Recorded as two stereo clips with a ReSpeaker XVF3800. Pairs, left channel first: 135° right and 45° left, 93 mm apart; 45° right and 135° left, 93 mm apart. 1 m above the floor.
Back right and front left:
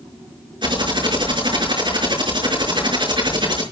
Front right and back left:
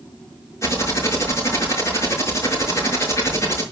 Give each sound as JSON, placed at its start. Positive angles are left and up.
{"t": 0.6, "sound": "typing on a keyboard", "azimuth_deg": 15, "distance_m": 5.5}